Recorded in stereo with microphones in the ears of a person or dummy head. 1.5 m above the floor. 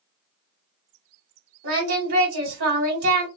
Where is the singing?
65° right (ahead or behind), 1.4 m.